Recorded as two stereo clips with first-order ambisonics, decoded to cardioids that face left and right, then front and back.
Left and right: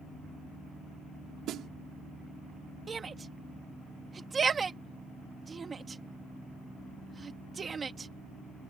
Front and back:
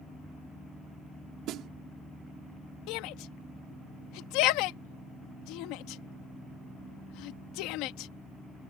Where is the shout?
20° right.